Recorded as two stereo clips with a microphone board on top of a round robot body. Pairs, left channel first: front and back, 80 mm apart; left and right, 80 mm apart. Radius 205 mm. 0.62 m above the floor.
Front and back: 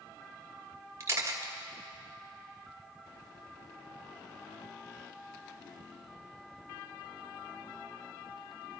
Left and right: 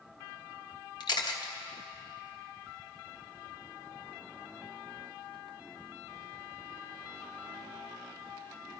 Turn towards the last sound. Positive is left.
turn(degrees=120)